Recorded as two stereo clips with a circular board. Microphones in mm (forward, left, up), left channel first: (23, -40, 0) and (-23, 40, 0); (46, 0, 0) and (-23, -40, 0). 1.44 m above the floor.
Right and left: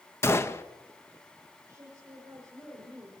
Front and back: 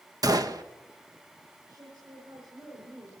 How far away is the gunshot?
About 0.9 m.